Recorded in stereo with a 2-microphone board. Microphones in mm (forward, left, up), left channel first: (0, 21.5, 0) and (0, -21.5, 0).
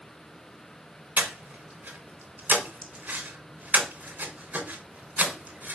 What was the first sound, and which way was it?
Breathing, 45° right (ahead or behind).